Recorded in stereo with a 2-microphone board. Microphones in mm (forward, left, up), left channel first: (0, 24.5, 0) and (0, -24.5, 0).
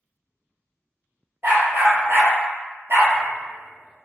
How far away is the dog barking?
About 0.9 m.